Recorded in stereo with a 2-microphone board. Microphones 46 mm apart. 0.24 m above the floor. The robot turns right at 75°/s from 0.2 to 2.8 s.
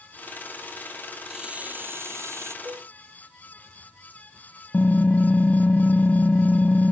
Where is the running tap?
170° right; by 2.5 s 75° right.